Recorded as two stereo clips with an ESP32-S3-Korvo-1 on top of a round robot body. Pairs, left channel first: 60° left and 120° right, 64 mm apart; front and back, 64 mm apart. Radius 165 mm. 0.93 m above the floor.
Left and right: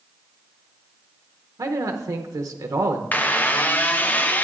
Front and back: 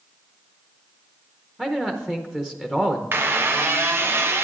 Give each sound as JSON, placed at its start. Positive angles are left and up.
{"t": 1.6, "sound": "a man speaking", "azimuth_deg": -100, "distance_m": 0.8}
{"t": 3.1, "sound": "a squeak", "azimuth_deg": 125, "distance_m": 0.6}